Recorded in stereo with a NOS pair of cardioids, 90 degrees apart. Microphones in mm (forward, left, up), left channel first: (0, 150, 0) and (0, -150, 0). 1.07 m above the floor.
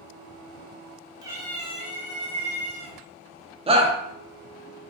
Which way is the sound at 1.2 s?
15° right.